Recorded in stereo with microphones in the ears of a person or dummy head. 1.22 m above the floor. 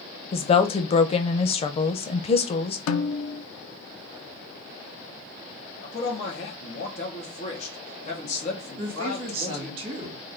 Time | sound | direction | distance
0.3 | a woman speaking | 30° left (ahead or behind) | 0.5 m
2.9 | a snare drum | 80° left | 0.5 m
5.8 | a man speaking | 40° left (ahead or behind) | 1.2 m
8.8 | a woman speaking | 35° right (ahead or behind) | 1.9 m